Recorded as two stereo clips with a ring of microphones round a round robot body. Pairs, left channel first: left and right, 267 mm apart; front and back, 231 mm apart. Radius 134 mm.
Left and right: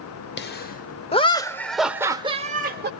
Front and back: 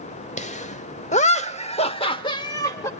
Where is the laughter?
50° left, 1.1 m; by 2.9 s 70° right, 0.9 m.